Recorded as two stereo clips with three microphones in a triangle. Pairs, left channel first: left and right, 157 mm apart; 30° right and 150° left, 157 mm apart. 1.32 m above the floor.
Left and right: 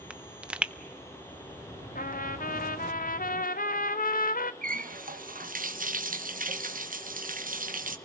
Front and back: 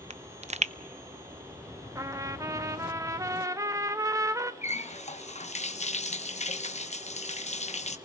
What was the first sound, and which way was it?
A pop, 170° right.